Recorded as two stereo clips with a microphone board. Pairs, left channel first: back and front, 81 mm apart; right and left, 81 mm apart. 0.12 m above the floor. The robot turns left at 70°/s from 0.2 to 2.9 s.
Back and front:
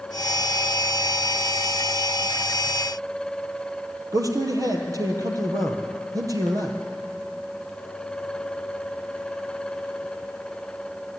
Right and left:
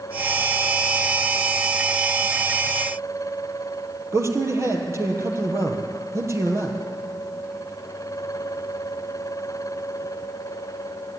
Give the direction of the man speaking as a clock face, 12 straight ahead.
11 o'clock.